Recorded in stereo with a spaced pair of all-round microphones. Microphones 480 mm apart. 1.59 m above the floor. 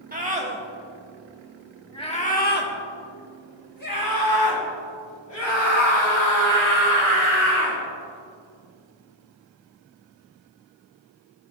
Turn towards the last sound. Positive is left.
turn(degrees=75)  # may be behind; listen again after turning